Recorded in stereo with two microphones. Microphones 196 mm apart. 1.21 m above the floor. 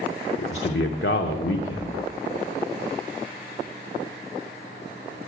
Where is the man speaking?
90° left, 0.8 m.